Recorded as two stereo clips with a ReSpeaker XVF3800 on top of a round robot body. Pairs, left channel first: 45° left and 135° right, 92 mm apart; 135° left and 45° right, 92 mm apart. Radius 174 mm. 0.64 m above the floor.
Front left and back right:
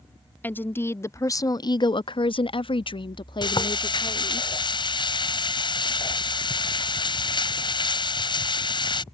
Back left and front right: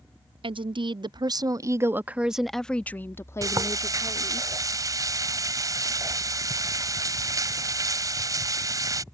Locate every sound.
0.4 s a woman speaking: 25° right; by 4.4 s 90° left
3.4 s frying: 10° left